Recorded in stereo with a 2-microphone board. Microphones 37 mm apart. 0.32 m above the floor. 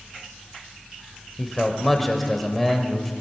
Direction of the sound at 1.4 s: 5° left (ahead or behind).